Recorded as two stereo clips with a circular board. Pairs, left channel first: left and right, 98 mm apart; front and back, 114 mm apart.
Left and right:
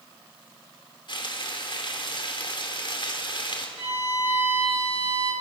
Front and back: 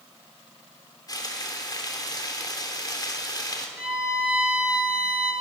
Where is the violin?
100° right, 7 m.